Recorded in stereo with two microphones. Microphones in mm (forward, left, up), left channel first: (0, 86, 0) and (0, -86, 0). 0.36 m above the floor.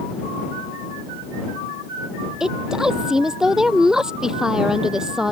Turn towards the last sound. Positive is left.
turn(degrees=-5)  # may be behind; listen again after turning